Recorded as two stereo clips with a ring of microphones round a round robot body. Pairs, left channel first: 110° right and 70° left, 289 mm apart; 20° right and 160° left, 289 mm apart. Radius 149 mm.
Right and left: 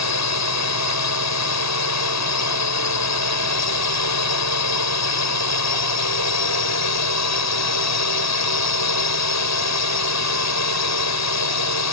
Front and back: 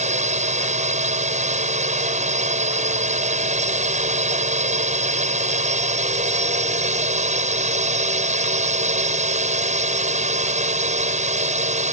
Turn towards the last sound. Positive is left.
turn(degrees=-140)